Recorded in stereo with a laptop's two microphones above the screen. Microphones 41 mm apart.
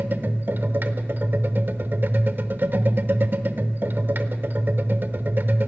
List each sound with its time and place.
0.0 s a machine running: 55° right (ahead or behind), 0.9 m